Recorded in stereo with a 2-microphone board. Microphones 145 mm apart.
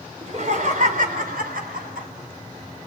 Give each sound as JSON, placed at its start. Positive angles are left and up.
{"t": 0.2, "sound": "laughter", "side_deg": -50, "distance_m": 3.5}